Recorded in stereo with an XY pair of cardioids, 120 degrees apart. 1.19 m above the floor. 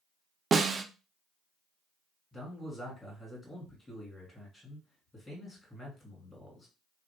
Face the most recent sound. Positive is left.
turn(degrees=15)